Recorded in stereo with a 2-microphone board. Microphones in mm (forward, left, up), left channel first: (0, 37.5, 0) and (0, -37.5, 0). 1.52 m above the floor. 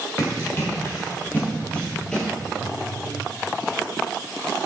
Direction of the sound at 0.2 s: 40° left (ahead or behind).